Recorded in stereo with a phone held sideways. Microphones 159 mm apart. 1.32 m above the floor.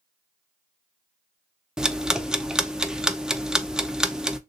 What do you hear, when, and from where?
1.8 s ticking: 5° right (ahead or behind), 0.6 m